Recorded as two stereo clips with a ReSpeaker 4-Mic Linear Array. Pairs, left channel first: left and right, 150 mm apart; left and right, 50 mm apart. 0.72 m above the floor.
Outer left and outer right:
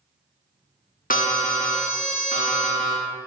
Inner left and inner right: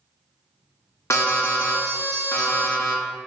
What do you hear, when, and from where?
1.1 s an alarm: 70° left (ahead or behind), 0.6 m